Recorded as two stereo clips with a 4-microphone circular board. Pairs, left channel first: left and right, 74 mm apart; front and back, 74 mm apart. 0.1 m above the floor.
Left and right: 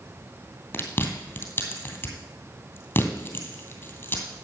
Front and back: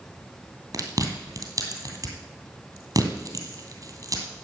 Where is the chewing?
150° left, 2.5 m.